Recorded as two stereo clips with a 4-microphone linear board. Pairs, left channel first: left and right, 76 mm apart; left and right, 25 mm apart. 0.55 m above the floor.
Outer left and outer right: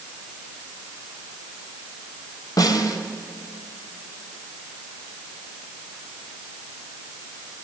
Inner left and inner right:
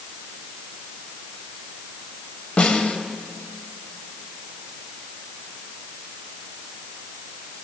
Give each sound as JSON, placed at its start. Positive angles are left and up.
{"t": 2.6, "sound": "a snare drum", "side_deg": 55, "distance_m": 2.5}